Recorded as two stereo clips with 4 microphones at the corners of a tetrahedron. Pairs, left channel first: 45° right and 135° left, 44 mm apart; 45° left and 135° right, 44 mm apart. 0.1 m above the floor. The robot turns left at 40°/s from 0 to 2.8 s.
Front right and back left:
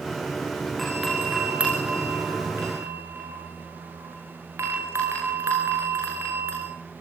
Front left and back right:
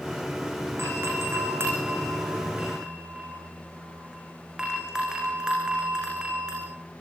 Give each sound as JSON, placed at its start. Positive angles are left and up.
{"t": 0.8, "sound": "a doorbell", "azimuth_deg": -130, "distance_m": 9.0}